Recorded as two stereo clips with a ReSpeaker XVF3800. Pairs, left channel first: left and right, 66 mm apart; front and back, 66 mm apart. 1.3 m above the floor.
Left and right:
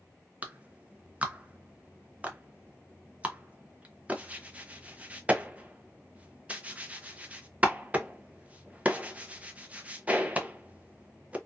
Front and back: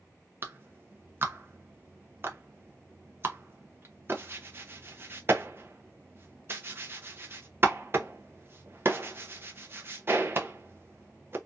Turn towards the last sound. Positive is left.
turn(degrees=-145)